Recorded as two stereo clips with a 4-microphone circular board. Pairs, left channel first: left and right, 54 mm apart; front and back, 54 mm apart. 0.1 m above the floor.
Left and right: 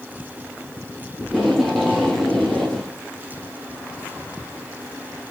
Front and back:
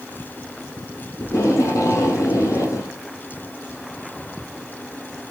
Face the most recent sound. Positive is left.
turn(degrees=0)